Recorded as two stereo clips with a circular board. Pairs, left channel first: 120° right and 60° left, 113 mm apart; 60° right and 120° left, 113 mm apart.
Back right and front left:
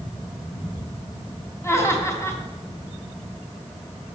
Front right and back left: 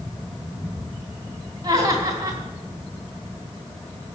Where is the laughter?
175° left, 3.5 m.